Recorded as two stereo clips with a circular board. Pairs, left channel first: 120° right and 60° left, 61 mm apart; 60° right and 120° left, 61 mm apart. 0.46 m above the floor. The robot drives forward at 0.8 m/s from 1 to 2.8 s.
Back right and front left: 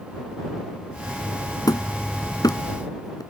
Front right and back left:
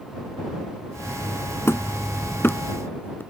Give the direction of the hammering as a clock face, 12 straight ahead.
4 o'clock.